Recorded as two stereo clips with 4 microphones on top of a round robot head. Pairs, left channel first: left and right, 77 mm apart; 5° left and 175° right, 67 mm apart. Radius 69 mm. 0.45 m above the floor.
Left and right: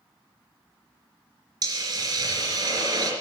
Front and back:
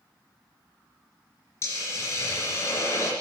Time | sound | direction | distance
1.6 | a hiss | 55° right | 3 m